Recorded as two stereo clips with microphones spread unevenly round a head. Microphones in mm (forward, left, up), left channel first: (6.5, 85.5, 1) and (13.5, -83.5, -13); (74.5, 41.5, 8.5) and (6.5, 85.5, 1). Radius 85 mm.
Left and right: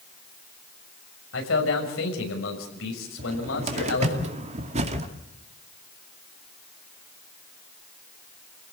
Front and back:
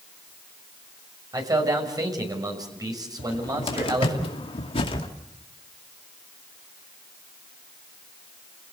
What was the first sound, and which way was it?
A man speaking, 105° left.